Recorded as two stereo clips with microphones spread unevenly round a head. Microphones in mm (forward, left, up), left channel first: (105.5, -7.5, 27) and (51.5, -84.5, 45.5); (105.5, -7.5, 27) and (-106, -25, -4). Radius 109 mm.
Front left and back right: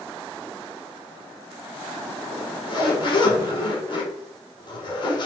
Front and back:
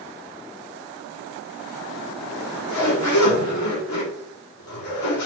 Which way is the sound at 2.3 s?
15° left.